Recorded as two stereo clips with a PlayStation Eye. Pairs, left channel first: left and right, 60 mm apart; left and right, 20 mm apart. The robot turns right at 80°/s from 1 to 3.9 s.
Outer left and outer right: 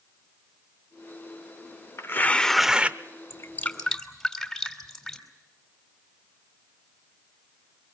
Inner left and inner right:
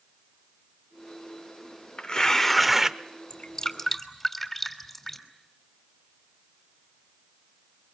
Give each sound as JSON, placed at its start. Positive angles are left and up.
{"t": 2.0, "sound": "tearing paper", "azimuth_deg": 135, "distance_m": 0.6}
{"t": 3.3, "sound": "dripping", "side_deg": 45, "distance_m": 2.5}